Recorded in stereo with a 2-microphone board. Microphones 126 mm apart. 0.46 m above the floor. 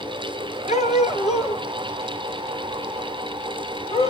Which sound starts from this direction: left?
A dog barking, at 0.7 s.